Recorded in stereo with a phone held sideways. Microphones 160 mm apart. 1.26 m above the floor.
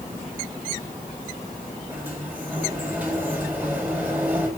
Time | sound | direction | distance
1.9 | a sliding door | 10° right (ahead or behind) | 5 m